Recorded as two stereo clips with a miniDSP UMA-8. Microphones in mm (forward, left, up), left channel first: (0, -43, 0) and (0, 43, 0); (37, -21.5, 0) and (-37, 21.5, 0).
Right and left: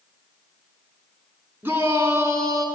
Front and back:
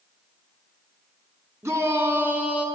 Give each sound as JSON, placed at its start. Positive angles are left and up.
{"t": 1.6, "sound": "a shout", "azimuth_deg": 130, "distance_m": 1.4}